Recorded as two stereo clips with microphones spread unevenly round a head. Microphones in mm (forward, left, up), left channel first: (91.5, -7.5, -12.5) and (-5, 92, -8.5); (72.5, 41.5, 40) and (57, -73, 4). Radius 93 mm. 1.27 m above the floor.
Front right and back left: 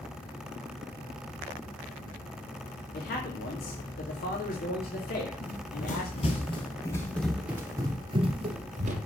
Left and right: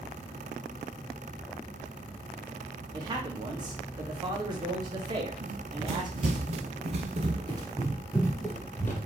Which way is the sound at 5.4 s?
70° right.